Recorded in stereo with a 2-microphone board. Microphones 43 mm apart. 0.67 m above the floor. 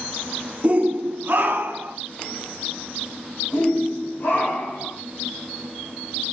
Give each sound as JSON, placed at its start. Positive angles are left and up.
{"t": 0.6, "sound": "a shout", "side_deg": -35, "distance_m": 0.7}
{"t": 3.5, "sound": "a shout", "side_deg": 65, "distance_m": 3.0}